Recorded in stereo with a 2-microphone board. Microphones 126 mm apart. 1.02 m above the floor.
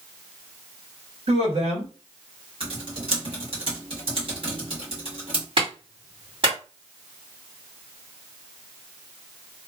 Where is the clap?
45° right (ahead or behind), 1.8 m.